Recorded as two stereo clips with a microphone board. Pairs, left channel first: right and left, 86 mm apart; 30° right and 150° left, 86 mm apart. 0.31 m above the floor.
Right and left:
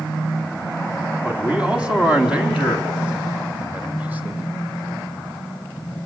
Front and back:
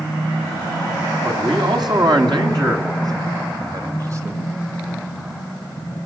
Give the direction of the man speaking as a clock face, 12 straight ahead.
6 o'clock.